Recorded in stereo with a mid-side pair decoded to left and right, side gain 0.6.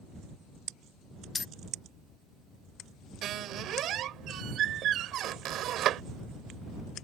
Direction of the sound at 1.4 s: 30° left.